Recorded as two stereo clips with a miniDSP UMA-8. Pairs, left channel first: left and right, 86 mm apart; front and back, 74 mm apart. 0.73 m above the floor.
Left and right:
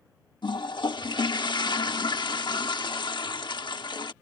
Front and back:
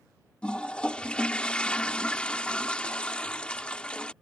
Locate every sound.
0.4 s a toilet flushing: 75° left